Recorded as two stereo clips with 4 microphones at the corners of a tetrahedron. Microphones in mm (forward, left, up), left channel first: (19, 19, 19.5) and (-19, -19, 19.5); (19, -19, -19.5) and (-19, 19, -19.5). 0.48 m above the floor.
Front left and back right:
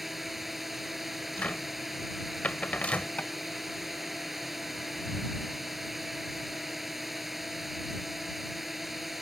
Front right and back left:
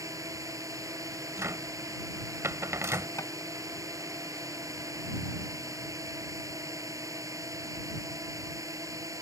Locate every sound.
0.0 s a drone: 140° left
1.4 s a cupboard door: 110° left
3.2 s tapping: 20° right